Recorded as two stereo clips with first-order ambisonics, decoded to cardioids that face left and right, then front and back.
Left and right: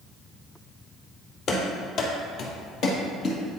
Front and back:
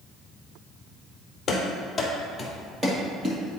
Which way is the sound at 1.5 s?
60° left.